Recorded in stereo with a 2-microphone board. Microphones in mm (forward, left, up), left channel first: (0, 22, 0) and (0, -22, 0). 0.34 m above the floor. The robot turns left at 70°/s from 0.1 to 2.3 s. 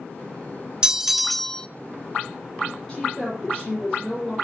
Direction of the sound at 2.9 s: 20° left (ahead or behind).